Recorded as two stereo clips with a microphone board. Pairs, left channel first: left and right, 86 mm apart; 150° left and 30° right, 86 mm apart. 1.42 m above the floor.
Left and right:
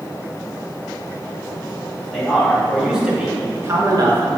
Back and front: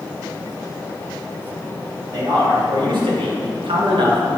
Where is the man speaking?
5° left, 3 m; by 4.4 s 70° right, 1.6 m.